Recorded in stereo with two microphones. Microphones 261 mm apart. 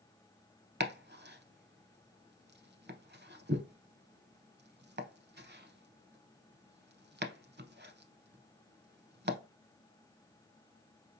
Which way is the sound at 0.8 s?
40° right (ahead or behind).